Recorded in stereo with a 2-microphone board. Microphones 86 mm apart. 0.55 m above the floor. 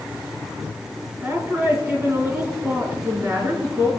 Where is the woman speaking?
35° right (ahead or behind), 4.5 m.